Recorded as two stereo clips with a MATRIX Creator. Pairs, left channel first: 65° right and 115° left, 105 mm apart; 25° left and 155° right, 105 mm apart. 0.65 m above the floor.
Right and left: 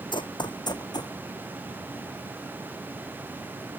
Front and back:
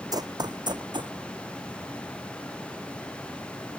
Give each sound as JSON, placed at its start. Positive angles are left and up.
{"t": 0.1, "sound": "running footsteps", "azimuth_deg": -105}